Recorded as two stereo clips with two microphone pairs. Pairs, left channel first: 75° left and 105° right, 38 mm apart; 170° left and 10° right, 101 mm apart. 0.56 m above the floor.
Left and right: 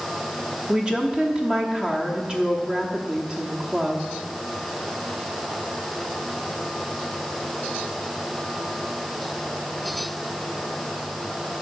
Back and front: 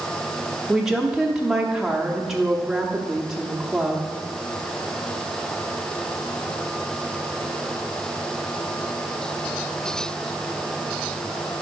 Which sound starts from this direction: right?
A woman speaking, at 0.7 s.